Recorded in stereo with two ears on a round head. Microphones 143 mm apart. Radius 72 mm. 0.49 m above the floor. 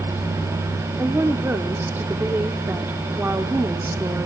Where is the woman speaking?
15° right (ahead or behind), 0.8 m.